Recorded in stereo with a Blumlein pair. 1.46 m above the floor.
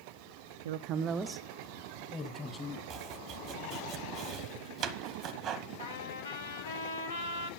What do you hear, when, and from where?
0.7 s a woman speaking: 60° right, 0.6 m; by 2.8 s 15° left, 2.5 m
2.9 s chopping: 30° right, 1.1 m
5.8 s a trumpet: 70° left, 1.7 m